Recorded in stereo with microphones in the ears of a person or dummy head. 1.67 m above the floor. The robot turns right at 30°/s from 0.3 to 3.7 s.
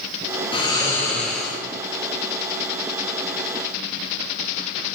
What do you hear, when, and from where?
0.5 s snoring: 155° left, 0.6 m; by 1.6 s 175° right, 0.6 m